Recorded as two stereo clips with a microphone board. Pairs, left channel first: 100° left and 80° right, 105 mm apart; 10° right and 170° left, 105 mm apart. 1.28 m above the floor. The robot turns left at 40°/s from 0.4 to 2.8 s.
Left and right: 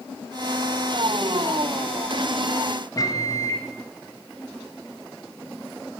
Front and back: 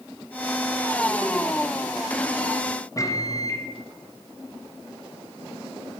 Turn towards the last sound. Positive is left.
turn(degrees=45)